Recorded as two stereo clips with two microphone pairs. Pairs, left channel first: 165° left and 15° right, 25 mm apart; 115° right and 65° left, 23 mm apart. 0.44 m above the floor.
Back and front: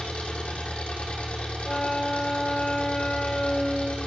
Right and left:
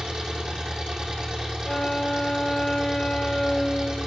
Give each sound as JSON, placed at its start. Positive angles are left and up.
{"t": 0.0, "sound": "an engine running", "azimuth_deg": 125, "distance_m": 6.5}
{"t": 1.6, "sound": "a flute", "azimuth_deg": -160, "distance_m": 1.1}